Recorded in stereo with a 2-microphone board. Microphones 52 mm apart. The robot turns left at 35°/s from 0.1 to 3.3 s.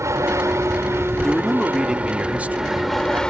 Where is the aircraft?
85° right; by 3.3 s 165° left.